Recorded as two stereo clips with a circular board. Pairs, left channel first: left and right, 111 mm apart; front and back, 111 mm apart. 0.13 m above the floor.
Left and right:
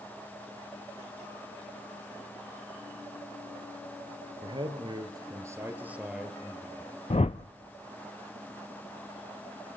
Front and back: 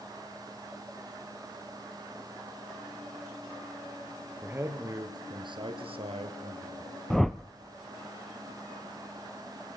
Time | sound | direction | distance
4.4 | a man speaking | 110° right | 3 m
7.1 | a whoosh | 85° left | 0.6 m